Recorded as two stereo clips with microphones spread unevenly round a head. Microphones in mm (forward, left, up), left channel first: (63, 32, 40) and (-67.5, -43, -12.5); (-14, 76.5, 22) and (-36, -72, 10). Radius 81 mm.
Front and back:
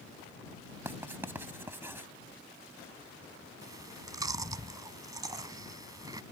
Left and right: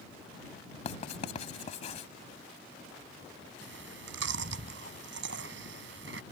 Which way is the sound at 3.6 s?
80° right.